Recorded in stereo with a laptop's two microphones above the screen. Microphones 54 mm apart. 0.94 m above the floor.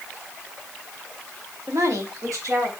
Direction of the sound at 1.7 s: 65° right (ahead or behind).